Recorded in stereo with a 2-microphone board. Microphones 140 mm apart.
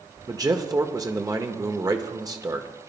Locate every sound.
0.3 s a man speaking: 25° right (ahead or behind), 0.9 m